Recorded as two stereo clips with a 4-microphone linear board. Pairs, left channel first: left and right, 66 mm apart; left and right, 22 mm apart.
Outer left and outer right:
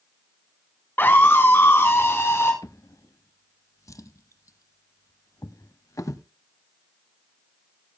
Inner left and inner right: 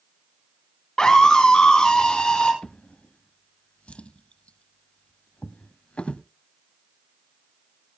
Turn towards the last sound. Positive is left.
turn(degrees=55)  # may be behind; listen again after turning